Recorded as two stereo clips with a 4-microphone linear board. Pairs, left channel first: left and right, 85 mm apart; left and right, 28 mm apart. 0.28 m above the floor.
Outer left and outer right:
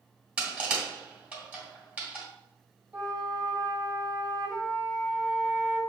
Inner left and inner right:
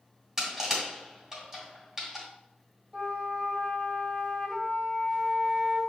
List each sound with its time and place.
0.4 s crushing: 15° right (ahead or behind), 1.7 m
2.9 s a flute: 20° right (ahead or behind), 1.6 m